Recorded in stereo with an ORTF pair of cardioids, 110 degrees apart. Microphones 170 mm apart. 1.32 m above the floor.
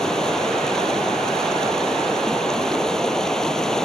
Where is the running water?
5° left.